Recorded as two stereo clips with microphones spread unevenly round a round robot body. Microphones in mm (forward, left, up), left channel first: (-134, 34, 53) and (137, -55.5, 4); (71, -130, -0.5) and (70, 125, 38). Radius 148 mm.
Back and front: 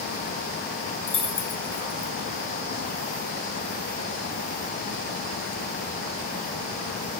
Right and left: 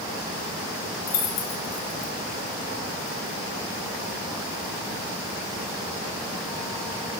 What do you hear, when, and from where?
1.1 s keys jangling: 125° right, 1.7 m